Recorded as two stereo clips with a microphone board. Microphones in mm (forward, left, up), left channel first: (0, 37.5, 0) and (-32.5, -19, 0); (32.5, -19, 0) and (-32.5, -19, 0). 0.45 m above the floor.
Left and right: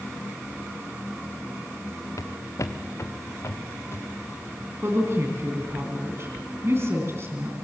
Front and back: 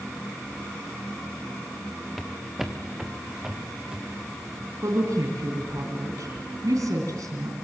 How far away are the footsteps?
About 2 m.